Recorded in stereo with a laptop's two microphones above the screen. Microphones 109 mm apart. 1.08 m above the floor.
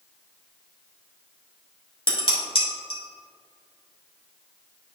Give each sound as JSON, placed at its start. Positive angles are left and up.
{"t": 2.1, "sound": "dishes clattering", "side_deg": 55, "distance_m": 1.9}